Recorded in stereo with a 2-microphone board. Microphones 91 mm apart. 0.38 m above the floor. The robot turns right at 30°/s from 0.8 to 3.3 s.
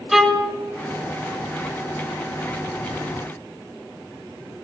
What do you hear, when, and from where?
0.1 s a violin: centre (ahead or behind), 1.2 m